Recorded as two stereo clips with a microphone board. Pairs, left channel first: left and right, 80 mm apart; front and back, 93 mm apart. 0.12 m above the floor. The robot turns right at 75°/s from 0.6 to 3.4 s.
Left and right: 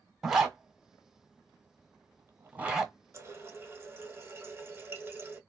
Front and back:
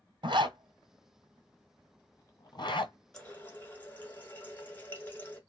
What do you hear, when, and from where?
0.2 s a zipper: 170° right, 0.9 m; by 2.9 s 5° left, 0.9 m
3.1 s a running tap: 75° right, 0.9 m; by 5.4 s 55° right, 0.9 m